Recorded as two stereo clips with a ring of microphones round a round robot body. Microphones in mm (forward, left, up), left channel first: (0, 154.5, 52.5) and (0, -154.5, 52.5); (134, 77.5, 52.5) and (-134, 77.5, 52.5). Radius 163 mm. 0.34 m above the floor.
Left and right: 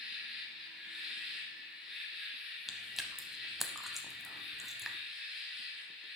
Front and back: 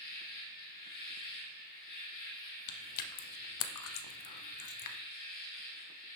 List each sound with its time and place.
0.0 s an insect: straight ahead, 2.0 m
2.7 s chewing: straight ahead, 0.6 m